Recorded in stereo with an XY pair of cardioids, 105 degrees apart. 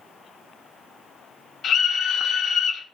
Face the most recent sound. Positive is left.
turn(degrees=60)